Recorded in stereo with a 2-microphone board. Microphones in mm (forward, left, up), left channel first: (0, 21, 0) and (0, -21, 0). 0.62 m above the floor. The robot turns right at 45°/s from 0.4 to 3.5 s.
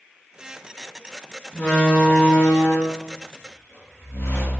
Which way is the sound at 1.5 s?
20° left.